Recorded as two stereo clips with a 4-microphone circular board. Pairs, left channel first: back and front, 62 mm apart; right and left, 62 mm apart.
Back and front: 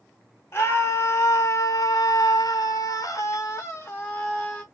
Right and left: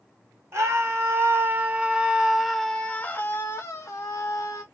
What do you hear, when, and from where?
0.5 s a scream: 130° left, 1.4 m; by 4.6 s 110° right, 1.2 m